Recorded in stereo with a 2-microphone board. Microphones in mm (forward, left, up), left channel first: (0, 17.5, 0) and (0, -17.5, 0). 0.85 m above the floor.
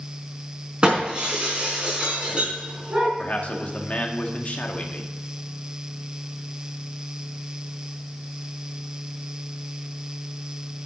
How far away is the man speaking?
About 1.8 m.